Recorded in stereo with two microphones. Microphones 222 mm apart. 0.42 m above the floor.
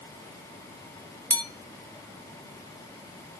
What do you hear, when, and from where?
1.3 s a bell: 10° left (ahead or behind), 0.5 m